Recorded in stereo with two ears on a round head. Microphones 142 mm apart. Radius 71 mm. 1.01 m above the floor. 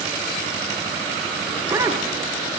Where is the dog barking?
15° right (ahead or behind), 3 m.